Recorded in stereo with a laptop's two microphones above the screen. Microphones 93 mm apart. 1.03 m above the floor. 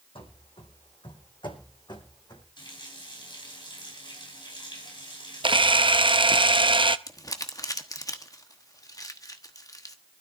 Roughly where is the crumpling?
Left.